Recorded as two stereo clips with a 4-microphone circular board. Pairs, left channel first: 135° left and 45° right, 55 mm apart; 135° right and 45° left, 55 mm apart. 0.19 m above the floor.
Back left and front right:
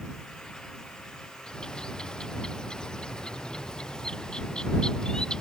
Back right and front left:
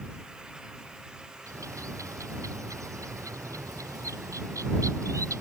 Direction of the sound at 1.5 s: 60° left.